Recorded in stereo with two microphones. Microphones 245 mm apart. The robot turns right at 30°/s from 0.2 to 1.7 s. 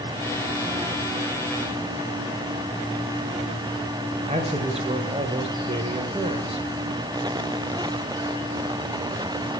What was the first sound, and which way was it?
A man speaking, 25° right (ahead or behind).